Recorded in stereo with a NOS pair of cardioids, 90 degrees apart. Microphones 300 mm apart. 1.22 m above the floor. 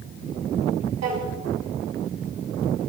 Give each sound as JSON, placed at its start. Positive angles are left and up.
{"t": 1.0, "sound": "a drawer", "azimuth_deg": -65, "distance_m": 5.5}